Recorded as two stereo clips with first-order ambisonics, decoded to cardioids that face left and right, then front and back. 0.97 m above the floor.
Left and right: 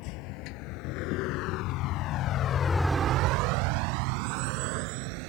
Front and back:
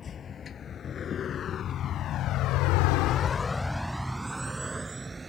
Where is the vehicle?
65° left; by 5.3 s 100° right.